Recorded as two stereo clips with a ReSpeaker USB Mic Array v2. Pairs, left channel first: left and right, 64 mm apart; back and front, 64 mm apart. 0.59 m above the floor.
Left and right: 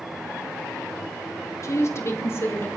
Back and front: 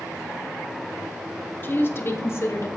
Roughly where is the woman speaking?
Behind left.